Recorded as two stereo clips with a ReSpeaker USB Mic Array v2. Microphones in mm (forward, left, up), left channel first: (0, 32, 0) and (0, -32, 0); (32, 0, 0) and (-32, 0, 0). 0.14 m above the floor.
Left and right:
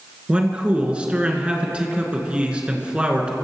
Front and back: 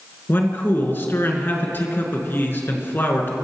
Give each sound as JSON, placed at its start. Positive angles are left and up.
{"t": 0.3, "sound": "a man speaking", "azimuth_deg": -25, "distance_m": 2.0}